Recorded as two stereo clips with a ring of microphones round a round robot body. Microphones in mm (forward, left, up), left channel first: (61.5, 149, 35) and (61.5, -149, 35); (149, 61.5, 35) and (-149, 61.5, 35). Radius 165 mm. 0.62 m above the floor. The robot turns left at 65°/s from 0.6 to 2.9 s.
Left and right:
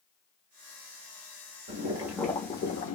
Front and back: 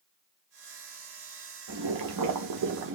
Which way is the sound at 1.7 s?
150° right.